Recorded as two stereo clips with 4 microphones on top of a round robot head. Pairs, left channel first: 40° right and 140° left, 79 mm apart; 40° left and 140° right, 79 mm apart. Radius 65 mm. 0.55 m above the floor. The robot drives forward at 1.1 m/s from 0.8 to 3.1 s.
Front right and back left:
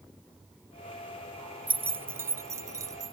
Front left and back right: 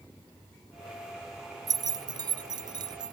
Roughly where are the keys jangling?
Behind right.